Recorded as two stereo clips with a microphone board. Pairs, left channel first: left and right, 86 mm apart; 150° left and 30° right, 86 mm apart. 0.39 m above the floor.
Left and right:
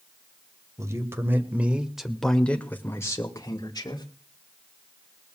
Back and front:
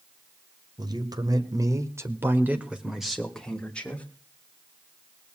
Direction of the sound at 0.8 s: 45° right.